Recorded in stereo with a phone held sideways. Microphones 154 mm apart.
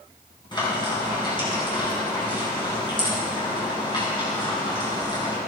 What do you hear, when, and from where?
0.5 s frying: 30° left (ahead or behind), 4 m